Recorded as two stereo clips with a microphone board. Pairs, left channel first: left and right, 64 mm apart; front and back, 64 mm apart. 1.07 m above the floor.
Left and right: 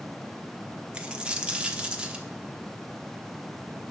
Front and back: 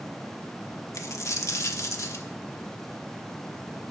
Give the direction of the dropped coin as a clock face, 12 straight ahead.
1 o'clock.